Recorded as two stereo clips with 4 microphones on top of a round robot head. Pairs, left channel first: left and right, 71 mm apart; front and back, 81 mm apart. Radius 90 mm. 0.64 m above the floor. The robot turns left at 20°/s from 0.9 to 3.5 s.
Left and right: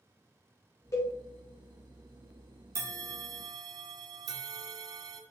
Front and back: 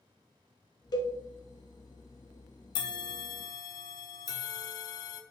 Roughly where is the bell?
Ahead right.